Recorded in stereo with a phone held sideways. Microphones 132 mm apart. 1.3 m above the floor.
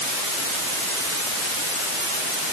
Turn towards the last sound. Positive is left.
No sound to turn to.